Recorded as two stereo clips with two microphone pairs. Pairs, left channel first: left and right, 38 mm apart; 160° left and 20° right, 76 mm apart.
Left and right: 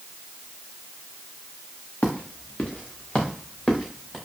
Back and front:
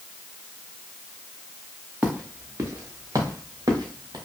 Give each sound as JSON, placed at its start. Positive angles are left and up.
{"t": 2.0, "sound": "footsteps", "azimuth_deg": 45, "distance_m": 1.3}